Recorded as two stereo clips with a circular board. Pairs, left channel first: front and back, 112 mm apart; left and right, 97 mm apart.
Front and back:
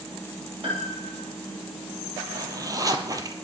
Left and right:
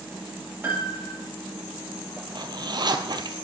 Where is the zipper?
125° right, 1.2 m.